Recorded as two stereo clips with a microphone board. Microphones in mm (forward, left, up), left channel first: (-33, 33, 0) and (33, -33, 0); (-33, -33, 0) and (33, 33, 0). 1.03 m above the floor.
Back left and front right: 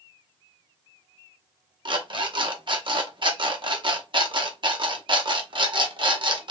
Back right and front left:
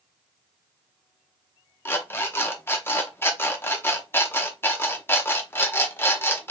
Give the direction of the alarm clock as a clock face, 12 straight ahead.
2 o'clock.